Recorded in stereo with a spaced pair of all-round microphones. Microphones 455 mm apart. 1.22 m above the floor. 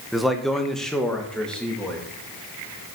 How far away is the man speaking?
About 0.8 m.